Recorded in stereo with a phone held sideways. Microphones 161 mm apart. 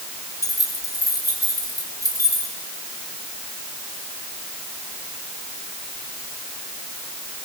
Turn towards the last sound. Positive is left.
turn(degrees=20)  # may be behind; listen again after turning